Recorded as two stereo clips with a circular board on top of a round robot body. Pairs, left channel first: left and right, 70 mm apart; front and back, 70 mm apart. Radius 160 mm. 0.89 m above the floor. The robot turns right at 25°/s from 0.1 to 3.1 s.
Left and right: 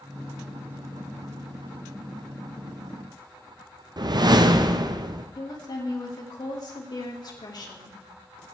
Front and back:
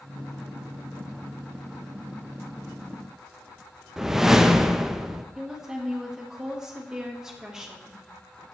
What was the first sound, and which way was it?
A whoosh, 100° right.